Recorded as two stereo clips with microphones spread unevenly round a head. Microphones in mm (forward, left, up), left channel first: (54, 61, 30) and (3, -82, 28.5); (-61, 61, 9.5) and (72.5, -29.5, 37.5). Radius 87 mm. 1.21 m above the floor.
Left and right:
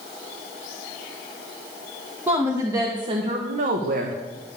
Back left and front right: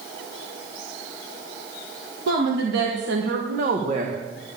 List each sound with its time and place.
2.3 s a woman speaking: 30° right, 1.8 m; by 4.2 s 100° right, 1.3 m